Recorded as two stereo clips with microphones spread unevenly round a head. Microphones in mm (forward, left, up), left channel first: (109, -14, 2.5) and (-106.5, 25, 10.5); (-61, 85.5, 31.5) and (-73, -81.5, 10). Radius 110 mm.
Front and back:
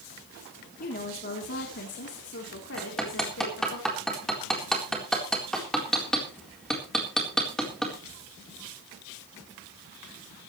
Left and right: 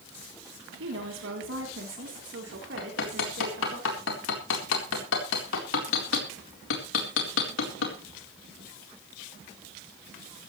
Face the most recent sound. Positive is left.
turn(degrees=80)